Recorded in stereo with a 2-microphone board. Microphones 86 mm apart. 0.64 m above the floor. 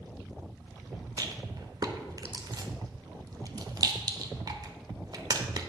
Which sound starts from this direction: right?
A rattle, at 1.2 s.